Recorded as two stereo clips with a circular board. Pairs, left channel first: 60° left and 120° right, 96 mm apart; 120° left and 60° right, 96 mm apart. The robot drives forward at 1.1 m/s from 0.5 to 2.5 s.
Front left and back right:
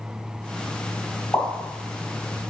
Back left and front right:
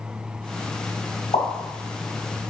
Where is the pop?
125° left, 3.5 m; by 1.5 s 130° left, 3.5 m.